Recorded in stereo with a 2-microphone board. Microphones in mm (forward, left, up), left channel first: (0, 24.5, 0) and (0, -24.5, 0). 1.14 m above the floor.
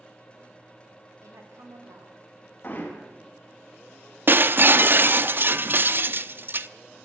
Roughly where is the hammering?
Left.